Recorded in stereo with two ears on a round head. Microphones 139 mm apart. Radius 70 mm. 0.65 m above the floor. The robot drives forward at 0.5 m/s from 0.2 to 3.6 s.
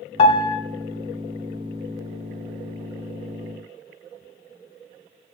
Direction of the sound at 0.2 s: 40° left (ahead or behind).